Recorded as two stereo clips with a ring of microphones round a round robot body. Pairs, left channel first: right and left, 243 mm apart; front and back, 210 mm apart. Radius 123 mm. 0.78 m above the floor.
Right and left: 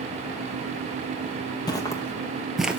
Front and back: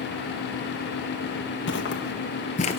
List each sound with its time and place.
1.7 s footsteps: 20° right, 1.2 m; by 2.8 s 15° left, 0.8 m